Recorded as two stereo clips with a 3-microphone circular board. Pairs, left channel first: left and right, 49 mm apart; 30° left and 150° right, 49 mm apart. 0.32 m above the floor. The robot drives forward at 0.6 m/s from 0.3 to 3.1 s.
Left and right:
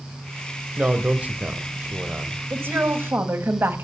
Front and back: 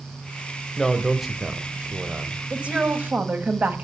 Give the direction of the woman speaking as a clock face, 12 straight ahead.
3 o'clock.